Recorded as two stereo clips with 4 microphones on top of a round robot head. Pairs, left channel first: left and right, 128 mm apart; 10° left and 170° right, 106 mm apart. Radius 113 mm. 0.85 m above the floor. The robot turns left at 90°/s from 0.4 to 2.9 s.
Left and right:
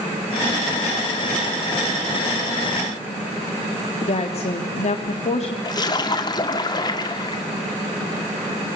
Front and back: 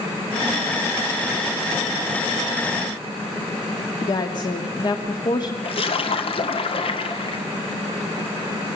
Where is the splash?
35° left, 1.8 m.